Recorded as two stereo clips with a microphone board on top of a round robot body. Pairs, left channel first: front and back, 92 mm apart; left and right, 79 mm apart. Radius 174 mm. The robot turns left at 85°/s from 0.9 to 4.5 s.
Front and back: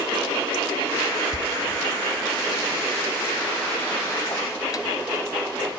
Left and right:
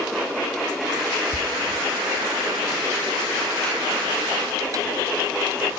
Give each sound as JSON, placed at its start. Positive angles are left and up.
{"t": 1.3, "sound": "a door slam", "azimuth_deg": -140, "distance_m": 0.9}